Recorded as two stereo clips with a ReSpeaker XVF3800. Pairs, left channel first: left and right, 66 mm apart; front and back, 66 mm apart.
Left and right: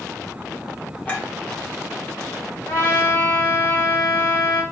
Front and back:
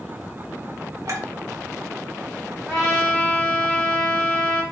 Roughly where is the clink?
Behind left.